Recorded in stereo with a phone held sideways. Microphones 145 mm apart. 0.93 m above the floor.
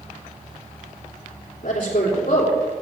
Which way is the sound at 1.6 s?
70° left (ahead or behind).